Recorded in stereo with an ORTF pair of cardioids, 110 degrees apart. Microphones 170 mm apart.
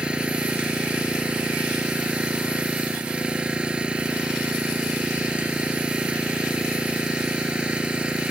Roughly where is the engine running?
Ahead.